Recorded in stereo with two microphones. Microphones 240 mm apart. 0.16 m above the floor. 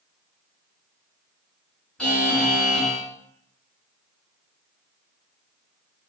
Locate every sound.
2.0 s a buzzer: 5° left (ahead or behind), 1.7 m